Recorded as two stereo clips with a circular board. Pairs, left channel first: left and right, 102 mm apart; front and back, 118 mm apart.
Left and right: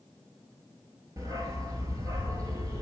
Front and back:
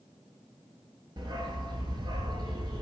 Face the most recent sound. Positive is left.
turn(degrees=-135)